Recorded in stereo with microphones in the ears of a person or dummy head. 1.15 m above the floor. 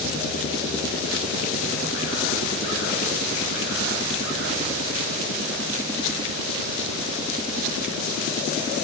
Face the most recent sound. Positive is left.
No sound to turn to.